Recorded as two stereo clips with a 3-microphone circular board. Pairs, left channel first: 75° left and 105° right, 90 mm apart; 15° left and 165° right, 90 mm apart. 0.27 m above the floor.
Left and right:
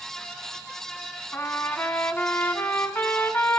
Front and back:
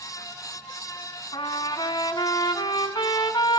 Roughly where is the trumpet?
Ahead.